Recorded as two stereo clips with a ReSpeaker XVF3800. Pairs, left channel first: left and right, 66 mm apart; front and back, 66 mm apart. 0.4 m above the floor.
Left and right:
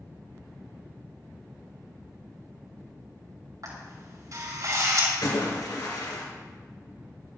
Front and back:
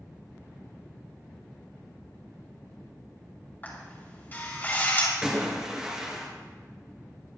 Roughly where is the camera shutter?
Ahead right.